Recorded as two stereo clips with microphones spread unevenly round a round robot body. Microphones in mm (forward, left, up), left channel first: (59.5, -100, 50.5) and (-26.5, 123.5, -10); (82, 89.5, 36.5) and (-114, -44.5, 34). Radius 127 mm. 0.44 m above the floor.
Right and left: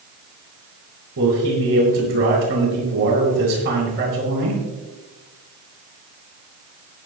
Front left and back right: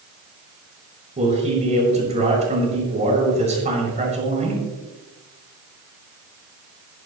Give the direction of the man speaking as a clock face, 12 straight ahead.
7 o'clock.